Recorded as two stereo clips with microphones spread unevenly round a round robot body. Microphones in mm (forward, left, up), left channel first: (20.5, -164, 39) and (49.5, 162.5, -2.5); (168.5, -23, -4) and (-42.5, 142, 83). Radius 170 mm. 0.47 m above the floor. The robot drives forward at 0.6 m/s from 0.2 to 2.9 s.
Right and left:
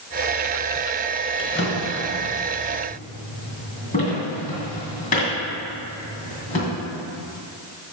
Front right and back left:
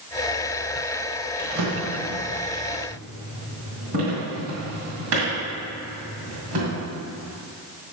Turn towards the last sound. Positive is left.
turn(degrees=-165)